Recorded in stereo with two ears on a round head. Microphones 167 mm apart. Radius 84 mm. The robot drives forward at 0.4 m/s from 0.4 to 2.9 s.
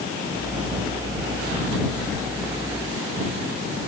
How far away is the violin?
I don't hear a violin.